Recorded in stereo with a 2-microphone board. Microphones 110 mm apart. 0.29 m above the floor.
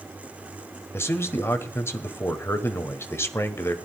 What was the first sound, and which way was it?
A man speaking, 25° left (ahead or behind).